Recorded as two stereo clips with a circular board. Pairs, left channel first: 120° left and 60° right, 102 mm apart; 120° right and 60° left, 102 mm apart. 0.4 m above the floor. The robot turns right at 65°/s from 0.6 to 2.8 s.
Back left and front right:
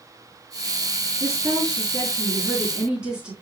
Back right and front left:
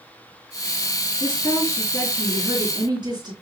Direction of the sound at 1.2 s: 85° right.